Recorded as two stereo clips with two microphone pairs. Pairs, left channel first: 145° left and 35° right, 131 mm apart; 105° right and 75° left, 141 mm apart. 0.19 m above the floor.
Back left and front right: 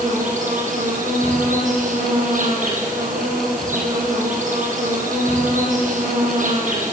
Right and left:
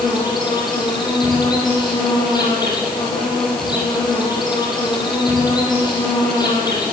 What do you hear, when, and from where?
0.0 s an insect: 45° right, 9 m